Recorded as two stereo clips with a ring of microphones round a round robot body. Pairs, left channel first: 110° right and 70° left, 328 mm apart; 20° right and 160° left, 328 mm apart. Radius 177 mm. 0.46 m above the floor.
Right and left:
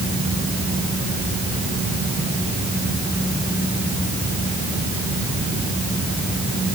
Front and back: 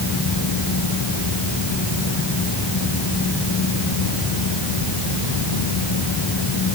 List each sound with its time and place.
Only background noise.